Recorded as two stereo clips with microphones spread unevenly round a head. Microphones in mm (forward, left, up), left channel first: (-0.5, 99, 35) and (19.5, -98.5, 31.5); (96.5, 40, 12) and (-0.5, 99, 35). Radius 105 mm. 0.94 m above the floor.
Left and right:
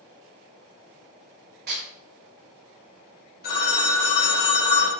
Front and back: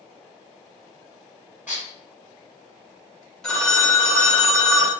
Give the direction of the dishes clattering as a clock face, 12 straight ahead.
4 o'clock.